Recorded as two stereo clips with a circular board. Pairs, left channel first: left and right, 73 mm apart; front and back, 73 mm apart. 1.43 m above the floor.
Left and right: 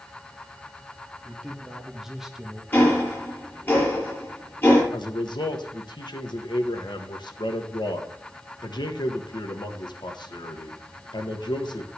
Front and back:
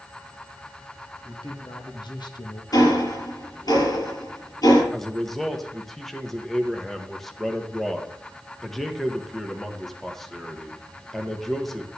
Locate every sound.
1.2 s a man speaking: straight ahead, 2 m; by 2.6 s 10° right, 1.4 m
2.7 s ticking: 25° left, 7 m
4.9 s a man speaking: 85° left, 1.5 m